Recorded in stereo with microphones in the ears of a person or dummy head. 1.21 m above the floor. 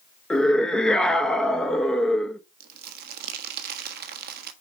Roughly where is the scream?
Centre.